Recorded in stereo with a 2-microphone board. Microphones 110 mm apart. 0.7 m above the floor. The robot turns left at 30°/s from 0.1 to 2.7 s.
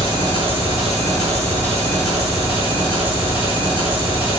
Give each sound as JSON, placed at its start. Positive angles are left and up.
{"t": 0.0, "sound": "an engine running", "azimuth_deg": -50, "distance_m": 3.5}